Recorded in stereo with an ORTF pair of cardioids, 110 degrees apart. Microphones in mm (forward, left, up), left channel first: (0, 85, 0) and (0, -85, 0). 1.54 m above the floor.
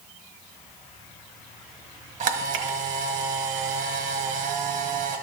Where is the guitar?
No guitar in this recording.